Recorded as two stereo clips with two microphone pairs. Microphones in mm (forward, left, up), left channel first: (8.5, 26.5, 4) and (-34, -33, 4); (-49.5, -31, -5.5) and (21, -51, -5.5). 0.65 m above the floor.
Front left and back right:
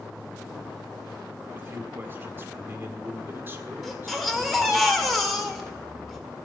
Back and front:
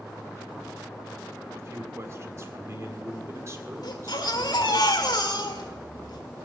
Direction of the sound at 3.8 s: 145° left.